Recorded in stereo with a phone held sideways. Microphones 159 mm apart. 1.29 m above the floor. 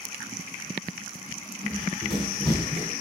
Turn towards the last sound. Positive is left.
turn(degrees=-35)  # may be behind; listen again after turning